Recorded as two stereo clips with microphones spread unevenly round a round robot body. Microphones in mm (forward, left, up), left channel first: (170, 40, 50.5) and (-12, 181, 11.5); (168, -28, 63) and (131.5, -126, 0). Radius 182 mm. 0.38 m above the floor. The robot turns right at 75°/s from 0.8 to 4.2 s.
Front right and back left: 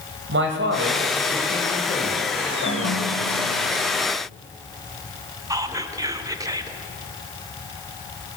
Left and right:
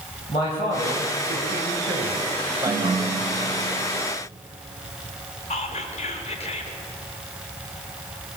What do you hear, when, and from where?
0.3 s a man speaking: 145° left, 2 m; by 3.6 s 5° right, 2 m
2.6 s a ringtone: 110° right, 0.6 m; by 4.0 s 5° right, 0.6 m
5.5 s whispering: 105° left, 1.1 m